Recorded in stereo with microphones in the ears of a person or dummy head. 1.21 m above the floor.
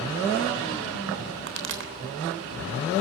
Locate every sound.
1.5 s a pop: 65° right (ahead or behind), 3 m